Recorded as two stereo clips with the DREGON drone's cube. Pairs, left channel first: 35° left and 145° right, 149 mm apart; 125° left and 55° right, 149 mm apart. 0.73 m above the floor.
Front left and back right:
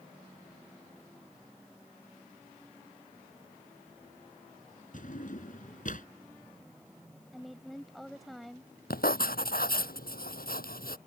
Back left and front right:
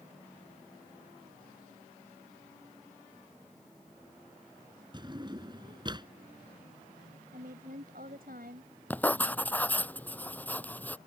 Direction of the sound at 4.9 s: 5° left.